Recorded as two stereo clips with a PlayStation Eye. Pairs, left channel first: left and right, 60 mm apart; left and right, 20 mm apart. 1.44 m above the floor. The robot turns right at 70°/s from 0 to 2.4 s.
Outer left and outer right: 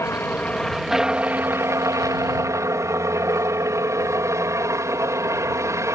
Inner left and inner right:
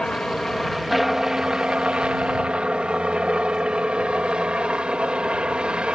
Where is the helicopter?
120° left; by 6.0 s 70° right.